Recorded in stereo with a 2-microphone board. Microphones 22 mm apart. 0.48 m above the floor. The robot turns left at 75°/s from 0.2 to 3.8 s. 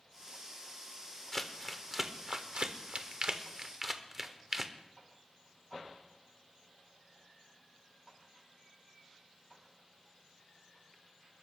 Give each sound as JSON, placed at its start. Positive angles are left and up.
{"t": 1.3, "sound": "crumpling", "side_deg": 20, "distance_m": 1.1}